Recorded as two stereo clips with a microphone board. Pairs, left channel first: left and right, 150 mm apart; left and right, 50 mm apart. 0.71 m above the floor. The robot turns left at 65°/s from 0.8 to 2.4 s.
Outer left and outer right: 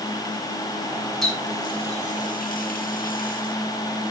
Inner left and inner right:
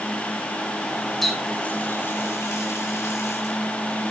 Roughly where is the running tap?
Centre.